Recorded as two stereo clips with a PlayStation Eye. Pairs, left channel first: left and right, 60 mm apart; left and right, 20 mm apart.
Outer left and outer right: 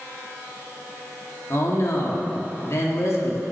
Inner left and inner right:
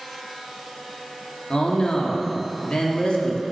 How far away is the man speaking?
About 1.4 m.